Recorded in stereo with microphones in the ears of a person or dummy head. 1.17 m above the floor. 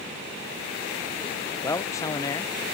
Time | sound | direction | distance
1.6 | a man speaking | 15° left (ahead or behind) | ?